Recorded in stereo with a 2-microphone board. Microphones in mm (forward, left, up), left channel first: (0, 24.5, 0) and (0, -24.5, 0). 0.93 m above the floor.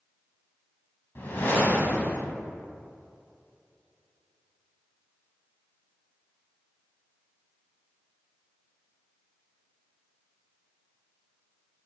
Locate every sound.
1.1 s a whoosh: 50° left (ahead or behind), 1.6 m